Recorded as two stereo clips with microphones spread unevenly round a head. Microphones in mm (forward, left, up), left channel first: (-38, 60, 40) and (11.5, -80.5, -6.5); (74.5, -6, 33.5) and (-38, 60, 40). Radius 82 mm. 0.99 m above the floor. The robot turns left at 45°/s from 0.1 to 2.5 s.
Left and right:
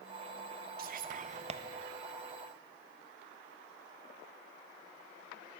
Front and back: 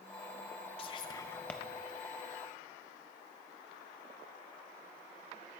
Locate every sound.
0.8 s whispering: 80° right, 0.6 m; by 1.6 s 115° right, 0.6 m